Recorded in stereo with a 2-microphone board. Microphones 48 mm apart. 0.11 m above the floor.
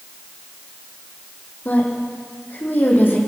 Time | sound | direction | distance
1.6 | a woman speaking | 40° left (ahead or behind) | 5 m